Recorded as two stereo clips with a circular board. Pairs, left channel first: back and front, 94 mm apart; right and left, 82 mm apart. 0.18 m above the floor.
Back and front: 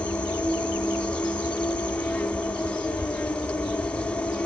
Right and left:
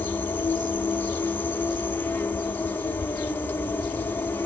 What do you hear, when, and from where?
0.0 s an insect: 120° right, 0.7 m